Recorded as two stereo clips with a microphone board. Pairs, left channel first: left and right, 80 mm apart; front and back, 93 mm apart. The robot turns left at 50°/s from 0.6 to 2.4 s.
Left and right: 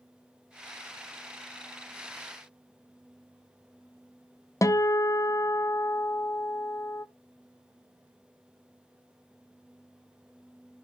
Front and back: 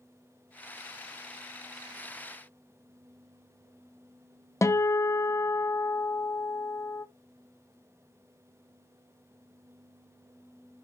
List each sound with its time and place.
4.6 s a guitar: 50° left, 0.6 m